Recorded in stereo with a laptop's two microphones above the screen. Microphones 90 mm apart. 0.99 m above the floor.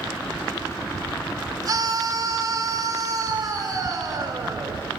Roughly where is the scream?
Right.